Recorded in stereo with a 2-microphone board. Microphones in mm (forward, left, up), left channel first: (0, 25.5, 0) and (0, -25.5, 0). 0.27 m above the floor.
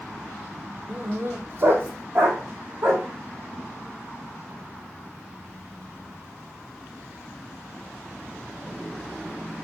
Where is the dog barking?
30° right (ahead or behind), 2.5 m; by 3.0 s 50° right (ahead or behind), 5.5 m.